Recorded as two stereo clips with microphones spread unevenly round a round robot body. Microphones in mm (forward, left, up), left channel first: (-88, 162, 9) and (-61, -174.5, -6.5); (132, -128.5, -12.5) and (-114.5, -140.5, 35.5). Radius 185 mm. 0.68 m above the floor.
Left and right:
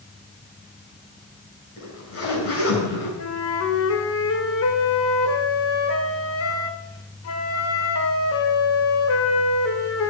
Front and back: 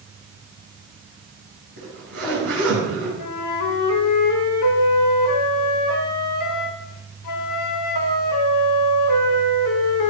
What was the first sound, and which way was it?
A zipper, 145° left.